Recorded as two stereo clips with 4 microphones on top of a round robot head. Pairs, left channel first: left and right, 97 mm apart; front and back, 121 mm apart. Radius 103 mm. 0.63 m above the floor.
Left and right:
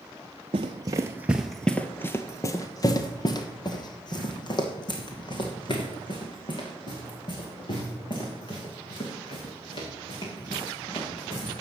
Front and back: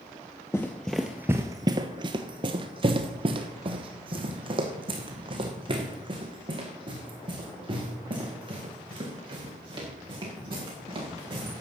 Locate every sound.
0.5 s running footsteps: 75° right, 0.7 m; by 11.6 s 130° left, 5.5 m